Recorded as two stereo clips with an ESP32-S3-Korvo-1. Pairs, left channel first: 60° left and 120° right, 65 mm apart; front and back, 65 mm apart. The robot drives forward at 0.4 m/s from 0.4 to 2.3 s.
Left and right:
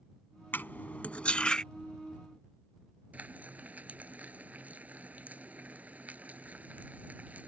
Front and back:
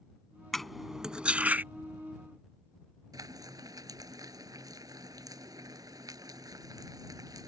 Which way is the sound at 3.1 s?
175° left.